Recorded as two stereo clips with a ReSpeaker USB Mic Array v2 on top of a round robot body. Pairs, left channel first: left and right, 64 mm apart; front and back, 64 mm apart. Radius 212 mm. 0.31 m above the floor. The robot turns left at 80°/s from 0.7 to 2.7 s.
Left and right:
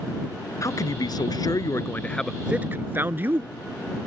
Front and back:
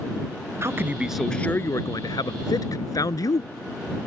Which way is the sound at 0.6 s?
130° left.